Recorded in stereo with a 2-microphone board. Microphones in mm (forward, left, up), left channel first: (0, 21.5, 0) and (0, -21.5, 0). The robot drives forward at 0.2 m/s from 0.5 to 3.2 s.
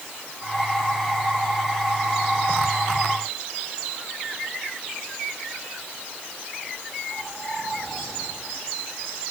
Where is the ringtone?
No ringtone in this recording.